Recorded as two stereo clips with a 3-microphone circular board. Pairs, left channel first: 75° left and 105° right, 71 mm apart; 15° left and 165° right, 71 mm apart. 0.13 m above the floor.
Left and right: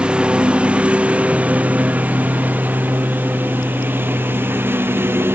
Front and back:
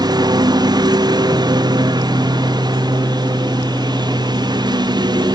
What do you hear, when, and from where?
0.0 s a lawn mower: straight behind; by 5.3 s 165° right